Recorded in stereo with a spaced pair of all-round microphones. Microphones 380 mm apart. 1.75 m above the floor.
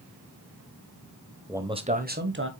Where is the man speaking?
5° right (ahead or behind), 1.1 m; by 2.5 s 30° right (ahead or behind), 1.6 m.